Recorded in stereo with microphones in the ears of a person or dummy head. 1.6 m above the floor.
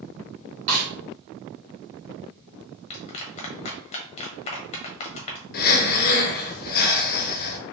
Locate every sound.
0.7 s a snare drum: 50° right (ahead or behind), 1.8 m
2.9 s a clap: 40° left (ahead or behind), 0.9 m
5.5 s breathing: 50° left (ahead or behind), 0.7 m